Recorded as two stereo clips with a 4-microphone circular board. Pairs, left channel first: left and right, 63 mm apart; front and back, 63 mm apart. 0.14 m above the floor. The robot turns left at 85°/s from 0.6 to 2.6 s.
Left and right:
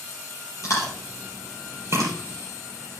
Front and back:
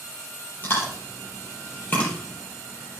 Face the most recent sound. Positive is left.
turn(degrees=-110)